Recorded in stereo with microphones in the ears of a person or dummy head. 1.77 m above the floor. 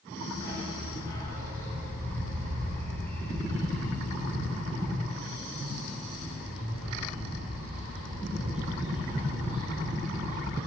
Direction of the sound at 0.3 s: 20° left (ahead or behind).